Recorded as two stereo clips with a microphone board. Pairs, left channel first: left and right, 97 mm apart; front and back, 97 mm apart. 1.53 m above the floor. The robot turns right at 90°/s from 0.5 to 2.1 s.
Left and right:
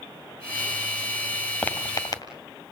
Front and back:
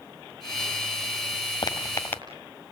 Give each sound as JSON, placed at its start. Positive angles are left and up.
{"t": 1.6, "sound": "footsteps", "azimuth_deg": 20, "distance_m": 2.0}